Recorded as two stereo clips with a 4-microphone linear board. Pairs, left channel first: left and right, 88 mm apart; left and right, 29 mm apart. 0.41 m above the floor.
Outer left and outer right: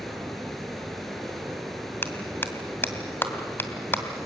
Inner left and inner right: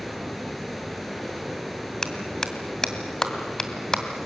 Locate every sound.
0.0 s running water: 5° left (ahead or behind), 3.5 m
2.0 s a clap: 25° left (ahead or behind), 2 m